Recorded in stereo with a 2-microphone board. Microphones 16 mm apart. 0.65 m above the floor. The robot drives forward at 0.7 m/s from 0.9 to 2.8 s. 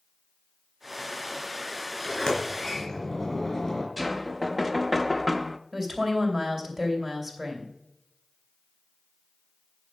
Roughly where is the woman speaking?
Right.